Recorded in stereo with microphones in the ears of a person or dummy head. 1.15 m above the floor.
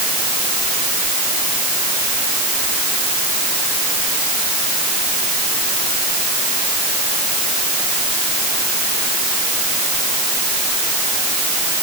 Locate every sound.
Only background noise.